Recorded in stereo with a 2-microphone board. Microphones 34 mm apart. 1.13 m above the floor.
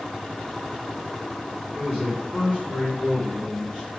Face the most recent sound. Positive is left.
turn(degrees=15)  # may be behind; listen again after turning